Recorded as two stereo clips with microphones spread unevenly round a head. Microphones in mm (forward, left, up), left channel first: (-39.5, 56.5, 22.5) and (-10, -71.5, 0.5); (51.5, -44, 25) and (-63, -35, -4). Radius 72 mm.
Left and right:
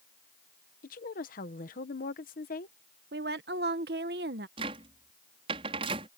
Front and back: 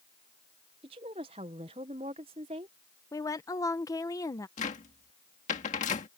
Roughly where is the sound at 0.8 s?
Behind left.